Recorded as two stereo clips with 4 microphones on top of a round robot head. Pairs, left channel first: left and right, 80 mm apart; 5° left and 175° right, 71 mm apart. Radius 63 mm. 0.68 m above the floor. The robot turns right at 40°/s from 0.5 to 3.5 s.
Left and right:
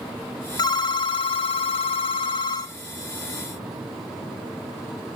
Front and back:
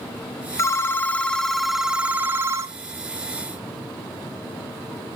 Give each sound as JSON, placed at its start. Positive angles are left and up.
{"t": 0.6, "sound": "a phone ringing", "azimuth_deg": 55, "distance_m": 0.9}